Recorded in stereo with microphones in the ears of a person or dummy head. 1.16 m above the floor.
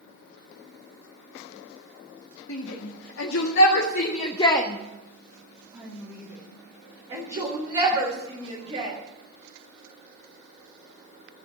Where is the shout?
90° left, 2 m; by 9.0 s 40° right (ahead or behind), 5 m.